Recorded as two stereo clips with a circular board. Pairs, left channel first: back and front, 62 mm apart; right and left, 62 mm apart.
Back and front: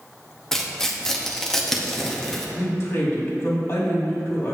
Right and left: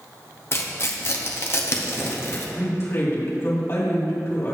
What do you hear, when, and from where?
0.5 s tearing paper: 100° right, 0.8 m
2.6 s a woman speaking: 135° right, 2 m